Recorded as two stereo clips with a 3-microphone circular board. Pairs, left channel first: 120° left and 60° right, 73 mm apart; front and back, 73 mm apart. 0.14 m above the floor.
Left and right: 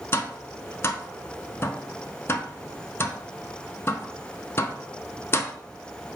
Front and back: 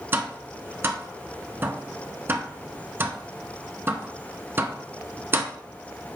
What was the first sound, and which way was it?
Tapping, 145° left.